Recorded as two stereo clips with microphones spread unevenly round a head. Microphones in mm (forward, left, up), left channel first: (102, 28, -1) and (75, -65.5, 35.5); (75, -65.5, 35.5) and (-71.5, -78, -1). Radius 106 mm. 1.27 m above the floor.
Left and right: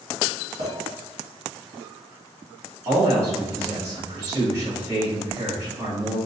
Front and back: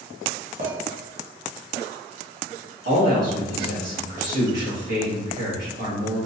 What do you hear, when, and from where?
0.6 s a clink: 140° right, 1.5 m
2.9 s a man speaking: 175° left, 1.8 m